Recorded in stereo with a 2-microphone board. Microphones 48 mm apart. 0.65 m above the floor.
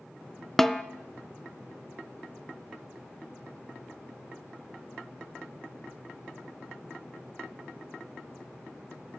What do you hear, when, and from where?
0.6 s a snare drum: 5° left (ahead or behind), 0.5 m